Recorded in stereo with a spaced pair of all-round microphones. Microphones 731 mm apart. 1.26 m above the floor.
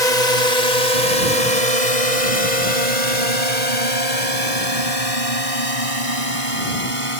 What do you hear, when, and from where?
0.0 s a drone: 80° left; by 7.2 s 45° left (ahead or behind)